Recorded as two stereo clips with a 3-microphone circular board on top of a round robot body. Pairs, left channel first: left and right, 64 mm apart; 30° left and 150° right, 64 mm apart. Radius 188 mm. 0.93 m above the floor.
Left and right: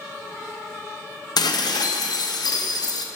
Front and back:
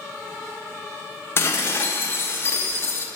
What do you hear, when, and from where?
1.4 s dishes clattering: 85° left, 0.8 m